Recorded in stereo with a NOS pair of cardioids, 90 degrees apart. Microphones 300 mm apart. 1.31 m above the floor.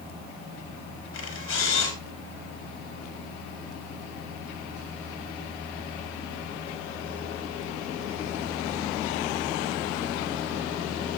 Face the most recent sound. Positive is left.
turn(degrees=45)